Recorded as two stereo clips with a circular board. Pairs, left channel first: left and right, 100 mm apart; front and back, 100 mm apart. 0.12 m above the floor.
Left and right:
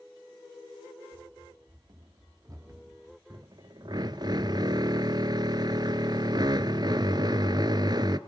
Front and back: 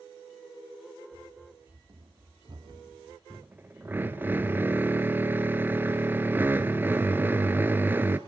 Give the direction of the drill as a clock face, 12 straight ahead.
4 o'clock.